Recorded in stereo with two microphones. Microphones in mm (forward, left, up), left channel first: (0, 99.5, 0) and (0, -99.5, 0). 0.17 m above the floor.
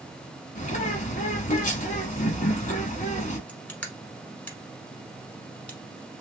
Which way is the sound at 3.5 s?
5° left (ahead or behind).